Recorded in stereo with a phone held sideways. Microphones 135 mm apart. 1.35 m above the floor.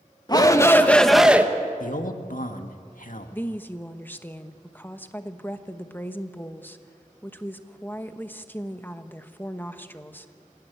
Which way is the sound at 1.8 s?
75° left (ahead or behind).